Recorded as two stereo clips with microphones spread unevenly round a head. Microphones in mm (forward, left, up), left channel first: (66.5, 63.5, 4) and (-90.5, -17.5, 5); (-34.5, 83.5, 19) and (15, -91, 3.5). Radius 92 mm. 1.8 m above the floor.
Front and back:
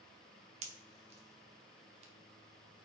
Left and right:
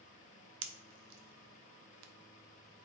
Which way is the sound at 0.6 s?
95° right.